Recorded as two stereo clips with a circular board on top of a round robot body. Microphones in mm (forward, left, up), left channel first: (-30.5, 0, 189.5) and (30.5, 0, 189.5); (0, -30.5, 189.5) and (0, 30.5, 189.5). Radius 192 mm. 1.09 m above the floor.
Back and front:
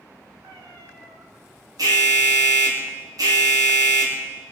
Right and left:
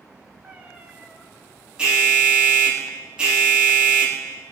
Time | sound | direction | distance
0.4 | a cat meowing | 20° left | 1.4 m
1.8 | an alarm | 15° left | 2.5 m